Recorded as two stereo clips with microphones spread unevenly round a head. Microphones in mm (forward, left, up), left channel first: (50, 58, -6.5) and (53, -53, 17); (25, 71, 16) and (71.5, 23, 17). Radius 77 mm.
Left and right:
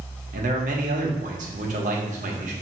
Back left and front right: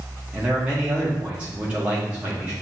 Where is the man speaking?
120° right, 0.9 m.